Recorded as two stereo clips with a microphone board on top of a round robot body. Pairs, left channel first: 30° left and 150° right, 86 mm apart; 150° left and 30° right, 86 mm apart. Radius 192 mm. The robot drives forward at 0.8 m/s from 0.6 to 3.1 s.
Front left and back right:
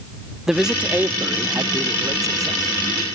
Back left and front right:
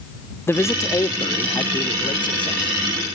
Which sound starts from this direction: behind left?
A man speaking, at 0.5 s.